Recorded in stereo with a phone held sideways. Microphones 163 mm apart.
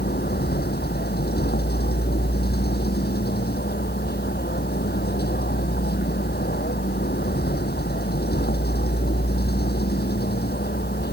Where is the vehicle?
80° left.